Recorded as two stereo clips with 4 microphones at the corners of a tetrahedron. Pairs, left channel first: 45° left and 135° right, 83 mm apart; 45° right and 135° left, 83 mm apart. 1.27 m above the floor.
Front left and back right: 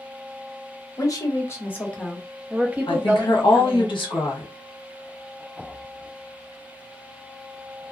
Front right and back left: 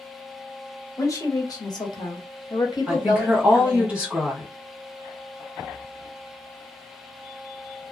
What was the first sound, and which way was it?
A woman speaking, 5° left.